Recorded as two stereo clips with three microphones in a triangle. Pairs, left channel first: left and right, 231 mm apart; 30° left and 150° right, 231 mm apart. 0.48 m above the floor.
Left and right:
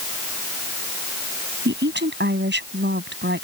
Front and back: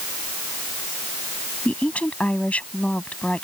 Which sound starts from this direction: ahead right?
A woman speaking, at 1.6 s.